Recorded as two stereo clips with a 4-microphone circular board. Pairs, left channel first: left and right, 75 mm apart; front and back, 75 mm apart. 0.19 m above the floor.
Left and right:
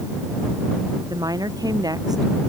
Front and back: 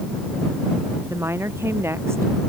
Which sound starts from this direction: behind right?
A woman speaking, at 1.1 s.